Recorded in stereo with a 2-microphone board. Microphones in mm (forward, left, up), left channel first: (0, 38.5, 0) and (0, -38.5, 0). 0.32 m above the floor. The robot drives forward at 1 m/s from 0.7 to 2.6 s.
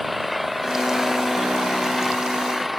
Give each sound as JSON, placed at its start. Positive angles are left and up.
{"t": 0.0, "sound": "an engine running", "side_deg": 0}